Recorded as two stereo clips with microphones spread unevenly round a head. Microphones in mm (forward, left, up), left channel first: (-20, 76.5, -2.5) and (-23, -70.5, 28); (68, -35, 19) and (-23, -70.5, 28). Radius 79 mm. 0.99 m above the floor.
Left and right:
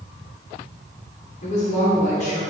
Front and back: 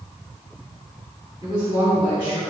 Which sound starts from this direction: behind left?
A woman speaking, at 1.4 s.